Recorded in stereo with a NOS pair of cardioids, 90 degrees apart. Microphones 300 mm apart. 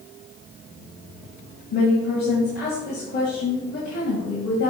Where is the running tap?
I don't hear a running tap.